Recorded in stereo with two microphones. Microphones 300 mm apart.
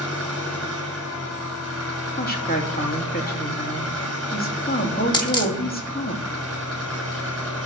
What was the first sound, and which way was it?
An engine running, 45° right (ahead or behind).